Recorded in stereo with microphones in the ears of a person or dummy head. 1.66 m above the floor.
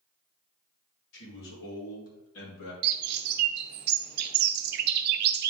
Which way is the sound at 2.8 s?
60° right (ahead or behind).